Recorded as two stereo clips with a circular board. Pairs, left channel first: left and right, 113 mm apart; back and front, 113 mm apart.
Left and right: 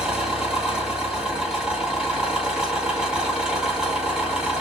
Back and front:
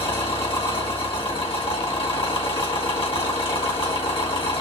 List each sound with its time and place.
0.0 s an engine running: 170° right, 1.8 m